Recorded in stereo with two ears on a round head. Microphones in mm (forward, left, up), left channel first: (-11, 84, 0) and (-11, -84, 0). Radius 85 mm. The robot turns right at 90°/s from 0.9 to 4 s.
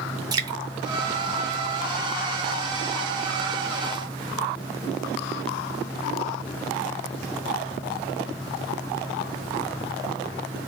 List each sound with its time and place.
0.3 s dripping: 20° right (ahead or behind), 0.5 m